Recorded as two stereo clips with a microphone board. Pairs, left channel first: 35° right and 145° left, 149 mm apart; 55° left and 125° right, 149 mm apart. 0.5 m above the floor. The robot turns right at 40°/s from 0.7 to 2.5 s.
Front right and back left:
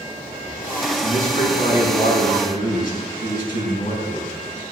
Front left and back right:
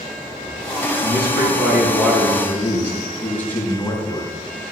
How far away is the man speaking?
About 4.5 m.